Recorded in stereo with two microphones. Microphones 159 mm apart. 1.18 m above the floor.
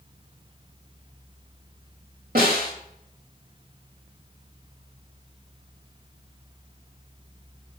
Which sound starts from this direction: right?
A snare drum, at 2.4 s.